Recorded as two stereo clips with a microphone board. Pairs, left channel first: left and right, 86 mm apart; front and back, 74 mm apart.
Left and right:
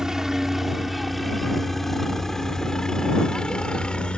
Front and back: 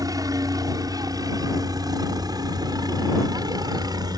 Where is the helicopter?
175° right; by 4.2 s 165° left.